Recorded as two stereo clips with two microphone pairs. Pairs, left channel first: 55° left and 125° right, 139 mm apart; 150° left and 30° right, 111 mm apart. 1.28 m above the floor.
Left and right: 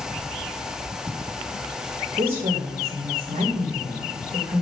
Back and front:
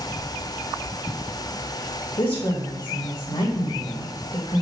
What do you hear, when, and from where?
2.2 s a woman speaking: 170° right, 1.7 m